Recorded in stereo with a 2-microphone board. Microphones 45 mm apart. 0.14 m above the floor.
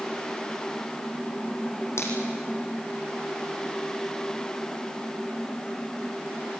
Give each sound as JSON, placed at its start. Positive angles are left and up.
{"t": 2.0, "sound": "a finger snap", "side_deg": 75, "distance_m": 5.0}